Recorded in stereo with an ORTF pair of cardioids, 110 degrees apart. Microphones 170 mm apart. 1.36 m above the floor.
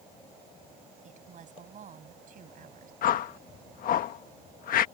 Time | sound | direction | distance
1.0 | a woman speaking | 50° right | ?
3.0 | a whoosh | 60° left | ?